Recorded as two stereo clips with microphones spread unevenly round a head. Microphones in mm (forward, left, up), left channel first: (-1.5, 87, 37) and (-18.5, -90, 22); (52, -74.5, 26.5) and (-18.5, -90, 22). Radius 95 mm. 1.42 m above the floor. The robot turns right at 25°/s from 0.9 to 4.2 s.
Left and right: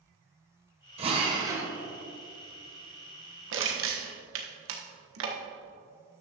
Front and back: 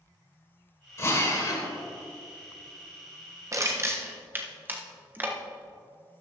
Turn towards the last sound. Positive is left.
turn(degrees=-100)